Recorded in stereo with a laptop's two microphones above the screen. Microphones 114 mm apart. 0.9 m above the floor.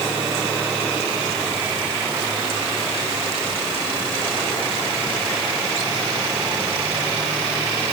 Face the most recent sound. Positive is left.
No sound to turn to.